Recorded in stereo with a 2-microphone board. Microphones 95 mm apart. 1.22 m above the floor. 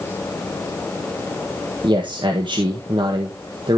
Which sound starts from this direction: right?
A man speaking, at 1.8 s.